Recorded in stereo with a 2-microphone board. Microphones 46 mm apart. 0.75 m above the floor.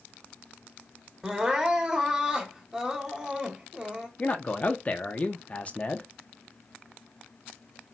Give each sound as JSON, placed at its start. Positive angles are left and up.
{"t": 1.2, "sound": "crying", "side_deg": -15, "distance_m": 1.3}
{"t": 4.2, "sound": "a man speaking", "side_deg": 30, "distance_m": 0.9}